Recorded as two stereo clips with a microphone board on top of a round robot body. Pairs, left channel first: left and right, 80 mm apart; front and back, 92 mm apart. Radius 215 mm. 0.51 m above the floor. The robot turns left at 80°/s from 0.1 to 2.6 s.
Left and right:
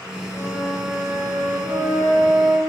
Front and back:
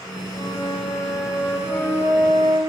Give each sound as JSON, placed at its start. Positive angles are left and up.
{"t": 0.3, "sound": "a flute", "azimuth_deg": 35, "distance_m": 3.0}